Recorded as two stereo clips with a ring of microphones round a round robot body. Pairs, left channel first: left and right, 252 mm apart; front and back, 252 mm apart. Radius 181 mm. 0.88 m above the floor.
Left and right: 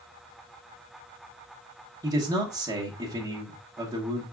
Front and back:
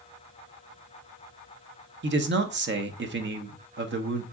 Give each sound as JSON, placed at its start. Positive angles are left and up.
{"t": 2.0, "sound": "a man speaking", "azimuth_deg": -165, "distance_m": 0.8}